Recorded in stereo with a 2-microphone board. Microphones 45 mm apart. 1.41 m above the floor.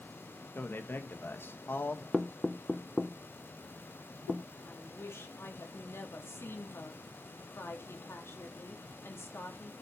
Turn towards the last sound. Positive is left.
turn(degrees=75)  # may be behind; listen again after turning